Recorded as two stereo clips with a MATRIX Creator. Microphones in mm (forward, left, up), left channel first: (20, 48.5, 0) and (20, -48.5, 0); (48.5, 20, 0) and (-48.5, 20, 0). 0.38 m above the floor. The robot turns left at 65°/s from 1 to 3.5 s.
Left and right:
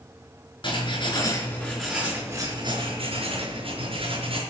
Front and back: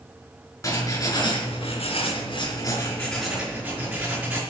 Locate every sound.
0.6 s writing: 60° left, 4.5 m; by 4.4 s 105° right, 4.5 m